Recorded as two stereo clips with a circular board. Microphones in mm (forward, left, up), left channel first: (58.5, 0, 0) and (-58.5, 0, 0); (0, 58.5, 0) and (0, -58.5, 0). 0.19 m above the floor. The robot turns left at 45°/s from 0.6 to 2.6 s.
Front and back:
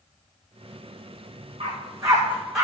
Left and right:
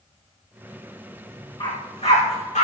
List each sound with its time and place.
1.6 s a dog barking: 135° left, 5 m; by 2.6 s 90° left, 5 m